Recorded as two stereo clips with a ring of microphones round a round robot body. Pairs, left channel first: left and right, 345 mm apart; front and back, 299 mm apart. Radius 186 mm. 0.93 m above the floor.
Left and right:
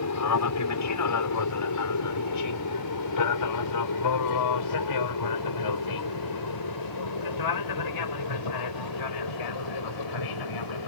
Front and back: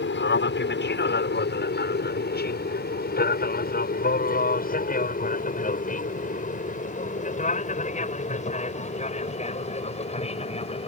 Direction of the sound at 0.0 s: 50° left.